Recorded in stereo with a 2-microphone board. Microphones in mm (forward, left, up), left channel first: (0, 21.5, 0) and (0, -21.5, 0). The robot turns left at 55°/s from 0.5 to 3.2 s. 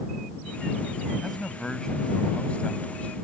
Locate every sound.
1.2 s a man speaking: straight behind; by 3.1 s 75° left